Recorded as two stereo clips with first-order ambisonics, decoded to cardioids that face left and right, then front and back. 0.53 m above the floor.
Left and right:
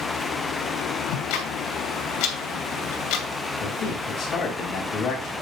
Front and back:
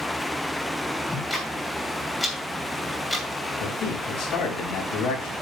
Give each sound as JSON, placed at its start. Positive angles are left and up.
{"t": 1.1, "sound": "ticking", "azimuth_deg": 80, "distance_m": 2.5}
{"t": 3.6, "sound": "a man speaking", "azimuth_deg": 40, "distance_m": 4.5}